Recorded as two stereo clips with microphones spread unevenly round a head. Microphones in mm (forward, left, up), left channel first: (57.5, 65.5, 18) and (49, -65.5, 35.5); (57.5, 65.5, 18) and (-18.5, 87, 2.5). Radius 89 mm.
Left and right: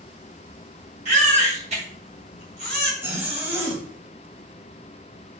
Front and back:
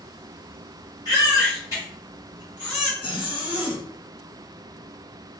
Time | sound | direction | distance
1.1 | a baby crying | 70° right | 1.6 m
3.0 | a zipper | 20° right | 0.9 m